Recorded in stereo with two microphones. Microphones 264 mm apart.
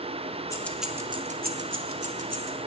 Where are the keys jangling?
10° left (ahead or behind), 1.2 m; by 2.6 s 70° right (ahead or behind), 1.6 m.